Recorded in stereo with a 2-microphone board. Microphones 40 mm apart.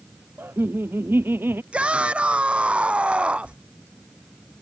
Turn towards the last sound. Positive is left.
turn(degrees=-30)  # may be behind; listen again after turning